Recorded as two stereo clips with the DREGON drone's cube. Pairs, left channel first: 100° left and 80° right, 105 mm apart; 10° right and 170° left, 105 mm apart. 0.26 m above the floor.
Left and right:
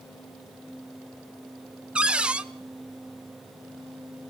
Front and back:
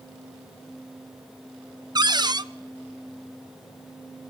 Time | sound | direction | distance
1.9 | a cupboard door | 155° right | 0.5 m